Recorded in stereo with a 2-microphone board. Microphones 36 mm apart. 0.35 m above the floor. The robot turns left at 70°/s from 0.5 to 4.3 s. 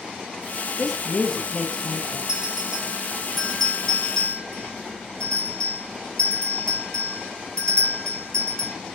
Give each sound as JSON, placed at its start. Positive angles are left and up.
{"t": 0.8, "sound": "a woman speaking", "side_deg": 0, "distance_m": 0.9}
{"t": 2.3, "sound": "a bell", "side_deg": -25, "distance_m": 1.4}